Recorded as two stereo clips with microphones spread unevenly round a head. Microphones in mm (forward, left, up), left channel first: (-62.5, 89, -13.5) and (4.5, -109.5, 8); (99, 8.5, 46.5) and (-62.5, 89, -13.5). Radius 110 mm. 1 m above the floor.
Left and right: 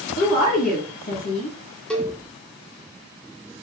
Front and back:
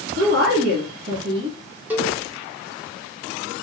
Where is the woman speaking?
140° left, 1.5 m.